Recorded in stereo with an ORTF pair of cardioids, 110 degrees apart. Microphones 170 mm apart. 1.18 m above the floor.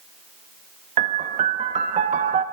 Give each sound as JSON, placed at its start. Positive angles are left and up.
{"t": 1.0, "sound": "a piano", "azimuth_deg": -45, "distance_m": 1.4}